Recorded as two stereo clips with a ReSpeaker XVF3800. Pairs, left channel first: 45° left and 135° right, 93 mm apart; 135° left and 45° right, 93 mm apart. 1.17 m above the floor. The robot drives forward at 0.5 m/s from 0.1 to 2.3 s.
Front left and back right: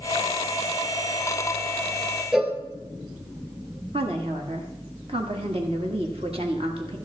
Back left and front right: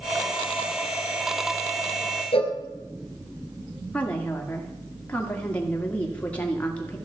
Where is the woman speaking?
150° right, 1.9 m.